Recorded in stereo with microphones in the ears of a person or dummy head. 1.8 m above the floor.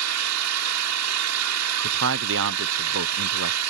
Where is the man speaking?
70° right (ahead or behind).